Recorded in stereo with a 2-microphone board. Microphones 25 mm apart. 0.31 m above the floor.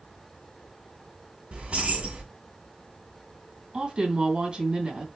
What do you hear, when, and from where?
1.5 s keys jangling: 60° right (ahead or behind), 2.0 m
3.7 s a woman speaking: 40° right (ahead or behind), 2 m